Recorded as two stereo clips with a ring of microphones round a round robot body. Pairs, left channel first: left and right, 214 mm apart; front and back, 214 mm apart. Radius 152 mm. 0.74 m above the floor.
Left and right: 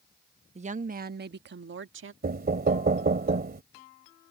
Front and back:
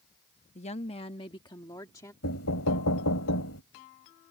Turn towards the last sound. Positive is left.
turn(degrees=-45)